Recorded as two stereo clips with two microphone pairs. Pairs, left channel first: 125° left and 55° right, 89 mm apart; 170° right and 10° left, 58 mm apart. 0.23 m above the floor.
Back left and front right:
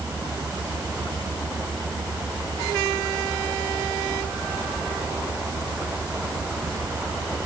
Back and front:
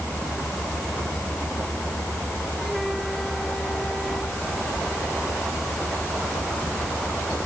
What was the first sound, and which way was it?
Only background noise.